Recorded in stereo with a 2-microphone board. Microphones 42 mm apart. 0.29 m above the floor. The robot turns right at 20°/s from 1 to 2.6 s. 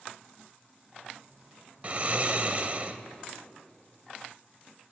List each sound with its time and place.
1.8 s snoring: 35° right (ahead or behind), 0.6 m